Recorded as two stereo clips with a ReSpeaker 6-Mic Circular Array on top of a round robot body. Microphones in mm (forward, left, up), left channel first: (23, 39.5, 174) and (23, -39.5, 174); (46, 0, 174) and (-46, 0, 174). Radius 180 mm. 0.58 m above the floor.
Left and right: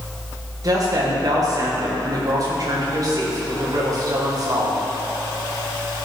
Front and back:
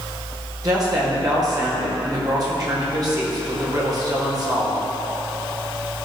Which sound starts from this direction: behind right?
A woman speaking, at 0.6 s.